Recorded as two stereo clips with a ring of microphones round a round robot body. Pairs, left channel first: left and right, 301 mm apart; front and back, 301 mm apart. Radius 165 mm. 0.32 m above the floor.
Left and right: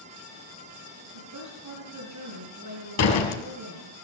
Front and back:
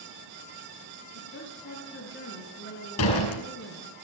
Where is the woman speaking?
55° right, 5 m.